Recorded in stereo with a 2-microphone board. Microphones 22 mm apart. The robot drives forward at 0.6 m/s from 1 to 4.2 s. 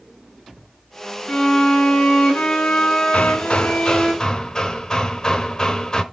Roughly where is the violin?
Left.